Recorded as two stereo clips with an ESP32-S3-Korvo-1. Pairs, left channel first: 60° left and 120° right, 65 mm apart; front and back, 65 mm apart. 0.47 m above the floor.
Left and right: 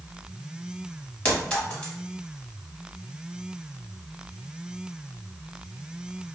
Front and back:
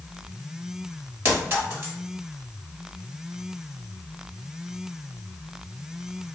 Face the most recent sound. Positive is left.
turn(degrees=130)